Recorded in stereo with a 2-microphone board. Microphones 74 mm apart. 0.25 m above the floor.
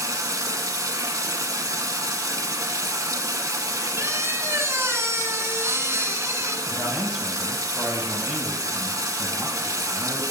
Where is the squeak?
40° right (ahead or behind), 0.8 m.